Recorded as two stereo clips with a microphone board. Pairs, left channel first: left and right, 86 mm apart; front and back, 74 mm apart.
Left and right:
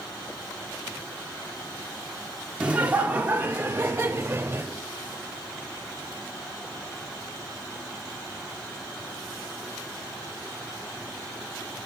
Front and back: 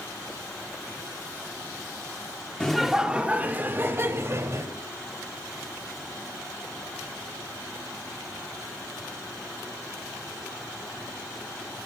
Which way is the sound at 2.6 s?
55° right.